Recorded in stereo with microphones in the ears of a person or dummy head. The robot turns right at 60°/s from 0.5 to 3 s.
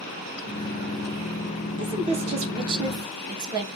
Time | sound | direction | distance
1.8 | a woman speaking | 120° right | 0.7 m